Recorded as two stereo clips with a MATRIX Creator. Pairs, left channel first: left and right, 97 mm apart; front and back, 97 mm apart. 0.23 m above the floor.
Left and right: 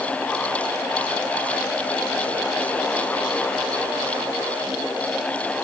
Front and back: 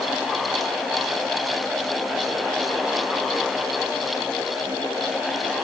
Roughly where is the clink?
No clink in this recording.